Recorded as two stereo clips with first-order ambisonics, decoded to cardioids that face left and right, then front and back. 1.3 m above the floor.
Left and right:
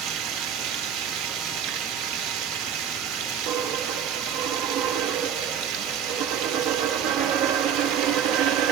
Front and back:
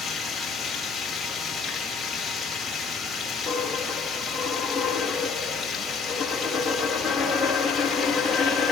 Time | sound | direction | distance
0.0 | running water | 85° right | 1.9 m
3.5 | a dropped coin | 95° right | 3.5 m